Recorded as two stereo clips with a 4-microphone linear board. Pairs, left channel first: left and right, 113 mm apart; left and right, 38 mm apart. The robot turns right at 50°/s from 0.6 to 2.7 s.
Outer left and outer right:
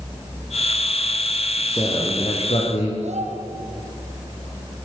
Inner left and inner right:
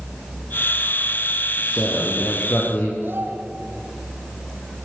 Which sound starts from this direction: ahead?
A man speaking, at 1.6 s.